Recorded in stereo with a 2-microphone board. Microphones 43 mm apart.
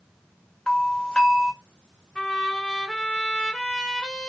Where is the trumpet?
20° left (ahead or behind), 1.5 m.